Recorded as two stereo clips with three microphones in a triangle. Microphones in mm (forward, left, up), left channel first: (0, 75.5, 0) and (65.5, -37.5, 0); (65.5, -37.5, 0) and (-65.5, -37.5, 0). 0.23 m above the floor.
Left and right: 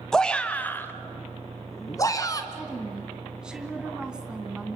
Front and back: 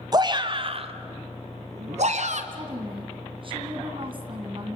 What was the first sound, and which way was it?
A shout, 155° right.